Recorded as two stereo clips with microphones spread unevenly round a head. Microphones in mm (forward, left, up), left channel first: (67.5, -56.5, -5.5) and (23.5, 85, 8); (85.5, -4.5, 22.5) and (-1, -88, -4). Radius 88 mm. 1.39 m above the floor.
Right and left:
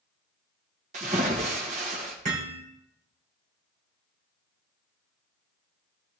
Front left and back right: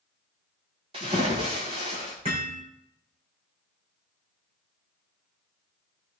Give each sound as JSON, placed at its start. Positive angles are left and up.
{"t": 0.9, "sound": "a splash", "azimuth_deg": 165, "distance_m": 1.7}
{"t": 2.2, "sound": "hammering", "azimuth_deg": 160, "distance_m": 3.0}